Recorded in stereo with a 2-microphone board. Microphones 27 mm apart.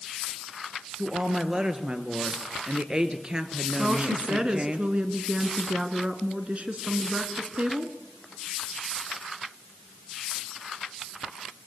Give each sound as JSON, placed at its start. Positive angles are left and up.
{"t": 1.0, "sound": "a woman speaking", "side_deg": -30, "distance_m": 2.0}
{"t": 3.8, "sound": "a woman speaking", "side_deg": -40, "distance_m": 1.9}